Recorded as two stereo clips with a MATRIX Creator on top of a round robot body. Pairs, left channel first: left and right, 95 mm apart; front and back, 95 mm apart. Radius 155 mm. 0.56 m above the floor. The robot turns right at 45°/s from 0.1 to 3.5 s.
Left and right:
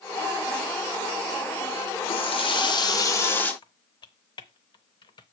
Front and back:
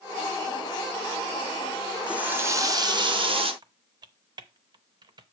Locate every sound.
2.1 s a running tap: 100° left, 1.5 m; by 3.5 s 165° left, 1.5 m
3.6 s typing on a keyboard: 135° left, 0.5 m